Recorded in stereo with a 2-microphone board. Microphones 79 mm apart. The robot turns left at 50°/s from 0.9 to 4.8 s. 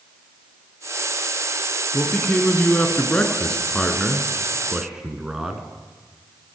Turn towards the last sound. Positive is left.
turn(degrees=-10)  # may be behind; listen again after turning